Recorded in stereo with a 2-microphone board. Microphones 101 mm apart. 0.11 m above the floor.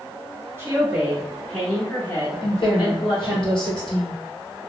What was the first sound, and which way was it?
A woman speaking, 25° right (ahead or behind).